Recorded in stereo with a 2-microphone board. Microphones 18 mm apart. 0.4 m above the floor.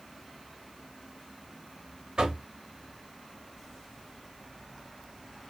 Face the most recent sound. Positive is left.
turn(degrees=-55)  # may be behind; listen again after turning